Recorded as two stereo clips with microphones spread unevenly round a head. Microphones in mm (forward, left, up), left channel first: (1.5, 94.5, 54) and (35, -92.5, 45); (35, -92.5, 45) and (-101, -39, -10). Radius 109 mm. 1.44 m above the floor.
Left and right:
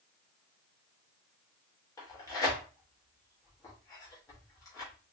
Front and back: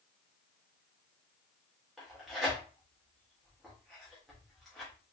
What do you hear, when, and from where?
2.0 s tearing paper: 40° left, 1.0 m